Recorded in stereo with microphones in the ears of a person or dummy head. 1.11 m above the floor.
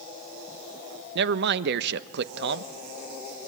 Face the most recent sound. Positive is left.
turn(degrees=-70)  # may be behind; listen again after turning